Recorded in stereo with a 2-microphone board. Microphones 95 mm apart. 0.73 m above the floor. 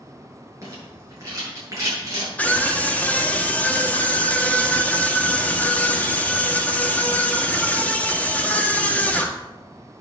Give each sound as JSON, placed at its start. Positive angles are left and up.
{"t": 0.6, "sound": "a rattle", "side_deg": -30, "distance_m": 7.5}
{"t": 2.4, "sound": "a scream", "side_deg": 15, "distance_m": 1.6}